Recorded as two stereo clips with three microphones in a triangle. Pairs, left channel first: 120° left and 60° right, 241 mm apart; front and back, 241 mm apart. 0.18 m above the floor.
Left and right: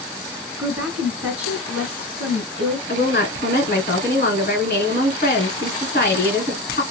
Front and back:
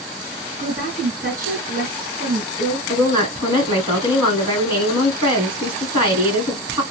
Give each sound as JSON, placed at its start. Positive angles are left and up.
{"t": 0.6, "sound": "a woman speaking", "azimuth_deg": -145, "distance_m": 2.0}
{"t": 2.9, "sound": "a woman speaking", "azimuth_deg": 120, "distance_m": 1.8}